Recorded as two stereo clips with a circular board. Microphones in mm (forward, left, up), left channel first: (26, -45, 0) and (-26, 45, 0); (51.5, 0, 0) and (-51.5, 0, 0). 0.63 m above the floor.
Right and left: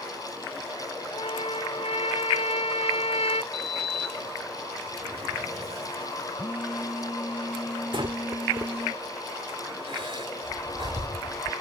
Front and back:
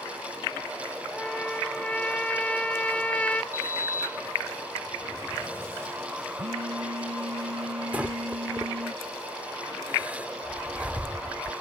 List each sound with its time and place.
1.1 s a trumpet: 80° right
3.5 s a sliding door: 115° left
6.4 s a phone buzzing: 170° right
7.9 s breathing: 105° left